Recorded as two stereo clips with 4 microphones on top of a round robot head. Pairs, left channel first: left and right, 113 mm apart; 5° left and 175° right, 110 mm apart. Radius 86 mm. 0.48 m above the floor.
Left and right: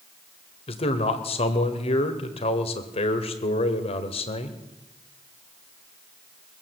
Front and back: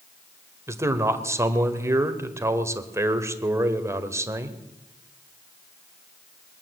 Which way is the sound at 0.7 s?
125° left.